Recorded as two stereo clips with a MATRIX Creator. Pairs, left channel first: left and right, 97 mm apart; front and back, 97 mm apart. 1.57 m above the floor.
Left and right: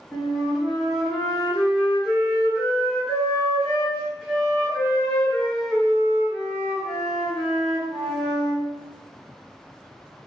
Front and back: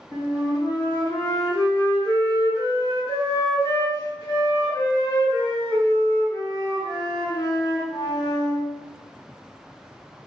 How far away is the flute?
About 1.4 m.